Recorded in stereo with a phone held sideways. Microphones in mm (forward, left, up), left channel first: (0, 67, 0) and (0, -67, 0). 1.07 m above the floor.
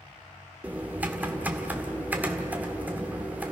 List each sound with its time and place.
0.6 s typing on a keyboard: 10° right (ahead or behind), 1.7 m